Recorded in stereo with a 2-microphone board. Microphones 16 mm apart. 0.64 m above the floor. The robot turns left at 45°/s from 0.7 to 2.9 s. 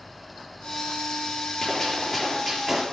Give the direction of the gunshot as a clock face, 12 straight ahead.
11 o'clock.